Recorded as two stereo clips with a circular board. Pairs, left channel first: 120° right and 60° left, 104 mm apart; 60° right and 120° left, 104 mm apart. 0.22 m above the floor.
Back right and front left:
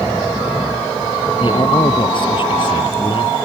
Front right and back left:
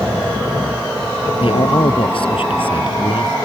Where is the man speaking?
85° right.